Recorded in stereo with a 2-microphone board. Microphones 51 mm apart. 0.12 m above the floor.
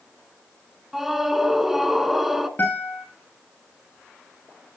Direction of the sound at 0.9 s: 5° right (ahead or behind).